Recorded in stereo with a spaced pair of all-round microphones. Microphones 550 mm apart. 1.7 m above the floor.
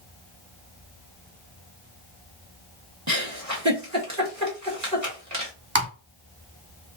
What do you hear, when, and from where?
3.1 s a giggle: 30° right (ahead or behind), 1.8 m
5.8 s typing on a keyboard: 20° right (ahead or behind), 2.5 m